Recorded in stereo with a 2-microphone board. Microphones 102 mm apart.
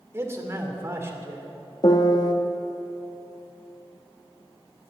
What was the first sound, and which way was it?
A man speaking, 25° right (ahead or behind).